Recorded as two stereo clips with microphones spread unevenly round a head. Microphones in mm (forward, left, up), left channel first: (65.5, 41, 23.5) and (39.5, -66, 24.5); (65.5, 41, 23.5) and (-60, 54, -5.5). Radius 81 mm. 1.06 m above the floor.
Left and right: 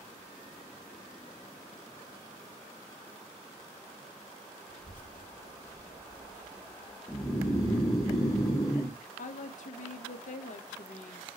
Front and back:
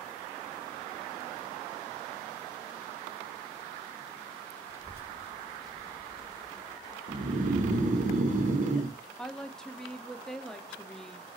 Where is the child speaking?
105° left, 1.2 m; by 7.0 s 35° left, 1.1 m.